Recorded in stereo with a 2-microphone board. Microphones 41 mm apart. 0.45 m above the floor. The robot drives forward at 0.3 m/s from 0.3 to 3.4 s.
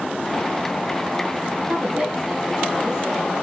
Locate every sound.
1.7 s a woman speaking: 20° right (ahead or behind), 7 m